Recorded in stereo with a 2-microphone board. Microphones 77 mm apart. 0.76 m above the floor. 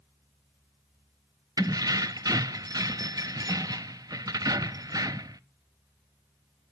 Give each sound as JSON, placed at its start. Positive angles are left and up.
{"t": 1.6, "sound": "keys jangling", "side_deg": -50, "distance_m": 0.5}